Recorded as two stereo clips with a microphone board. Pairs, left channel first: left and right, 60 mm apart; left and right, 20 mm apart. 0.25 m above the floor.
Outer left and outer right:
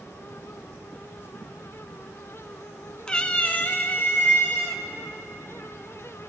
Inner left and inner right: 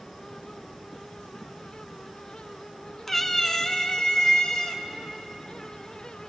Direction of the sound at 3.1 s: 15° left (ahead or behind).